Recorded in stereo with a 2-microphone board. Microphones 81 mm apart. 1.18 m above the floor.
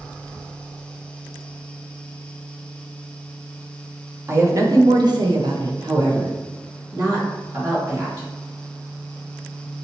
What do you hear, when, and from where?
4.3 s a woman speaking: 30° right (ahead or behind), 0.8 m; by 8.3 s 45° right (ahead or behind), 2 m